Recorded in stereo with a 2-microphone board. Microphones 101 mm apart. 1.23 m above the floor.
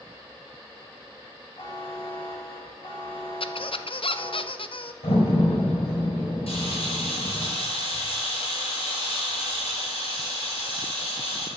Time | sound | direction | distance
1.6 | a buzzer | 55° left (ahead or behind) | 6.5 m
3.4 | a squeak | 60° left (ahead or behind) | 0.7 m
5.0 | a door slam | 75° left (ahead or behind) | 4 m
6.5 | a camera shutter | 70° left (ahead or behind) | 6 m